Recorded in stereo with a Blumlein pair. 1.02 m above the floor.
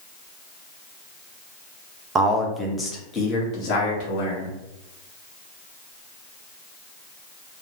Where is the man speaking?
25° right, 0.6 m; by 4.5 s 45° left, 1.6 m.